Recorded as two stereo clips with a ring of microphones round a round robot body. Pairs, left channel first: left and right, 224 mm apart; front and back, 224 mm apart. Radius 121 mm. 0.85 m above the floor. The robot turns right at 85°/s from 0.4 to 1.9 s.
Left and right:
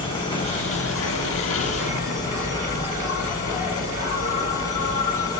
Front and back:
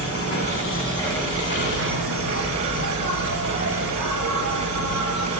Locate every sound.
0.0 s an insect: 25° left, 2.5 m; by 5.4 s 150° left, 2.5 m